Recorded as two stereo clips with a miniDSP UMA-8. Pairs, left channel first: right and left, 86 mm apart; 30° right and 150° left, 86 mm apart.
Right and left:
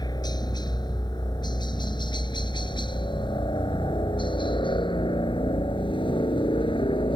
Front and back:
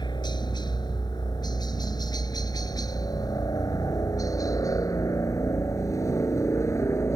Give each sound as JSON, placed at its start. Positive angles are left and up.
{"t": 0.0, "sound": "a helicopter", "azimuth_deg": -55}